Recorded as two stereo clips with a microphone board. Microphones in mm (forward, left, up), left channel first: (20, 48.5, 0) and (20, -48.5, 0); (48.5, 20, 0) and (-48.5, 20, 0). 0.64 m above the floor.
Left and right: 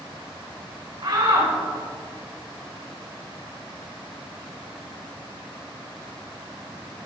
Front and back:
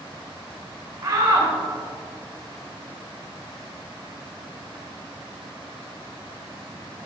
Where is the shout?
125° right, 3 m.